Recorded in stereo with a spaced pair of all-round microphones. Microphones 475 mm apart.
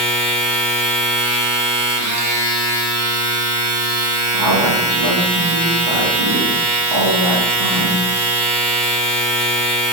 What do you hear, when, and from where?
0.0 s a machine running: 60° right (ahead or behind), 1.0 m
4.3 s a woman speaking: 65° right (ahead or behind), 0.9 m